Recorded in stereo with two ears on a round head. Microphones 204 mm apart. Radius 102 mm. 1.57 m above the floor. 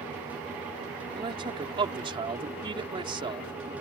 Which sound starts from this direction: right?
A man speaking, at 1.1 s.